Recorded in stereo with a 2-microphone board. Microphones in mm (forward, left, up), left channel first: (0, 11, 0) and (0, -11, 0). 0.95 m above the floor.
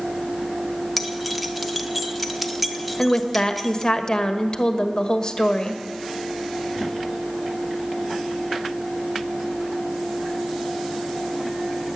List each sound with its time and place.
1.0 s keys jangling: 5° right (ahead or behind), 1.1 m
3.0 s a woman speaking: 30° left (ahead or behind), 1.3 m